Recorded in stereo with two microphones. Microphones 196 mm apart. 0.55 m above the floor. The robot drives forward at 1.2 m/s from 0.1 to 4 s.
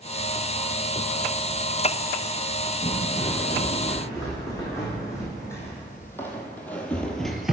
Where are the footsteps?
30° left (ahead or behind), 1.9 m; by 7.5 s 5° right (ahead or behind), 0.7 m.